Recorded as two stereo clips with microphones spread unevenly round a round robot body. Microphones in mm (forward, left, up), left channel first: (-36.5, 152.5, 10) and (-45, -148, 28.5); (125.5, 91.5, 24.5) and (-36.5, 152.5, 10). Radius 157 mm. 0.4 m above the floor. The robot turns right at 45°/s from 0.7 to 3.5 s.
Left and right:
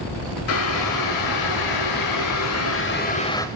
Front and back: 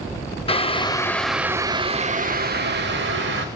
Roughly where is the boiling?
Ahead left.